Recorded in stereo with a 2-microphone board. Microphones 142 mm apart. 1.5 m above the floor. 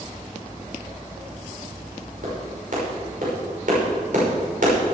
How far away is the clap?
About 5.5 m.